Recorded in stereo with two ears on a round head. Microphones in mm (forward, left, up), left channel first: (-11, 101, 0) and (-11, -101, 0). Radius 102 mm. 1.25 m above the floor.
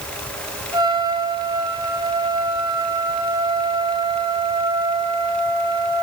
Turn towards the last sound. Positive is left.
turn(degrees=-20)  # may be behind; listen again after turning